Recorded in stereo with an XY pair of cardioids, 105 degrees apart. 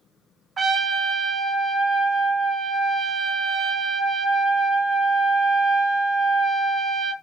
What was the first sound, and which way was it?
A trumpet, 40° right.